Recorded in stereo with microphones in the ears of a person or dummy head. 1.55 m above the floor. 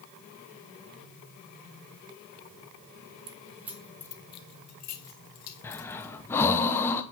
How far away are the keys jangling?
About 0.7 m.